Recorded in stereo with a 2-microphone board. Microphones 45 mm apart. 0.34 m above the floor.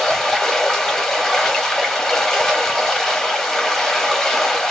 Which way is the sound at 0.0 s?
10° left (ahead or behind).